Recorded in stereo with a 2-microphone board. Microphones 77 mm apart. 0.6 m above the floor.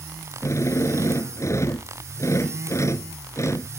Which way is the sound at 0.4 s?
40° left (ahead or behind).